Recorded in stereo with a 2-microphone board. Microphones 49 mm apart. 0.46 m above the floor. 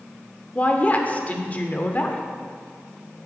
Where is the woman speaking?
30° left (ahead or behind), 0.9 m.